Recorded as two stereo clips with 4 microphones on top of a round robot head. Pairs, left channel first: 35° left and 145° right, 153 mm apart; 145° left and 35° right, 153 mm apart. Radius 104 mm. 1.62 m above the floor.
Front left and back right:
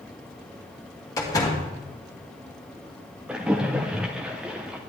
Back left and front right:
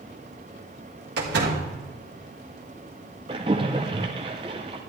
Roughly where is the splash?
Ahead right.